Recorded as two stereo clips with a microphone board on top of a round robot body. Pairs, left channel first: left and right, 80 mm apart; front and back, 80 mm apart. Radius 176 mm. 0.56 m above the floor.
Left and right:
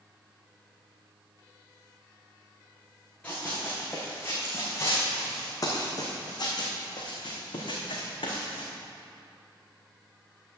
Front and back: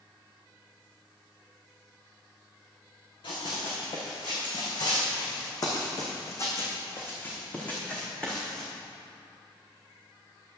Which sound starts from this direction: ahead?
Running footsteps, at 3.2 s.